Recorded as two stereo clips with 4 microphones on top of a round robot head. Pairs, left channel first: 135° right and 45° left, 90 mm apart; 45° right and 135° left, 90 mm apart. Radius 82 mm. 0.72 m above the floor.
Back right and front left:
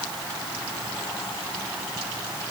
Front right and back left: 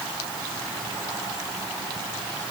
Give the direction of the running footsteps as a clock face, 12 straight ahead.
I don't hear running footsteps.